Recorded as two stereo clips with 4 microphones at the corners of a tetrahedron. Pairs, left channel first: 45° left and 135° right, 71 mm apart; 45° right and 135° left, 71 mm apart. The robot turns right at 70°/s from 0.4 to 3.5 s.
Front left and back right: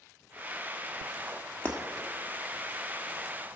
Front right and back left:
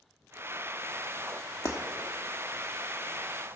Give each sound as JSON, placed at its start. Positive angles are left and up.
{"t": 1.6, "sound": "breaking glass", "azimuth_deg": -20, "distance_m": 1.4}